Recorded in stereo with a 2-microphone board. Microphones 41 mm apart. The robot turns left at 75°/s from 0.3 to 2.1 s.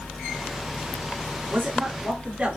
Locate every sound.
1.5 s a man speaking: 80° right, 2.0 m; by 2.6 s 125° right, 2.0 m